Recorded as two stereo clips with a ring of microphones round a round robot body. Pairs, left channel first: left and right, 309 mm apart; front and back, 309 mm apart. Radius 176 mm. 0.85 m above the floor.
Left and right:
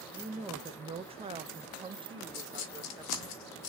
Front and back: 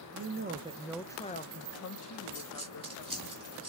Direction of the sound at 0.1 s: 165° right.